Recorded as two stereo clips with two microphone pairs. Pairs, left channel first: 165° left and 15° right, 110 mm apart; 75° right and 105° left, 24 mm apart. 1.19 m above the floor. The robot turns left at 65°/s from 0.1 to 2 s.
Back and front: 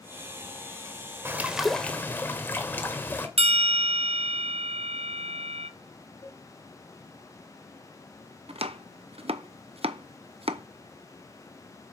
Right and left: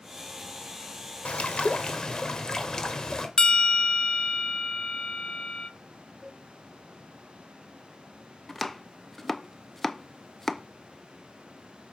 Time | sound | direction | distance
1.2 | a bird | 80° right | 1.6 m
3.4 | a bell | 20° right | 0.6 m
6.2 | a cowbell | 145° right | 1.8 m
8.5 | chopping | 5° left | 0.7 m